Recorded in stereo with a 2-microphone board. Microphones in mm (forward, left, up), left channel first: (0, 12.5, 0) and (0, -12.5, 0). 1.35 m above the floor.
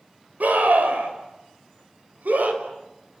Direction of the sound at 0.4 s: 80° right.